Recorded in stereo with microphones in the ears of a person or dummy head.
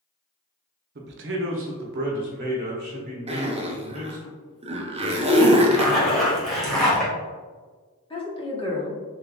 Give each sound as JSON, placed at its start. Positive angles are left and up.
{"t": 0.9, "sound": "a man speaking", "side_deg": -50, "distance_m": 0.7}
{"t": 3.3, "sound": "a zipper", "side_deg": -25, "distance_m": 0.6}
{"t": 5.7, "sound": "a zipper", "side_deg": 0, "distance_m": 1.4}
{"t": 8.1, "sound": "a woman speaking", "side_deg": 20, "distance_m": 1.2}